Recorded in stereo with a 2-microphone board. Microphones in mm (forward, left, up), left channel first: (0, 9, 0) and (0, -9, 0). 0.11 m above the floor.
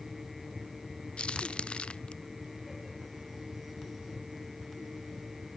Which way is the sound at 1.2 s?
80° left.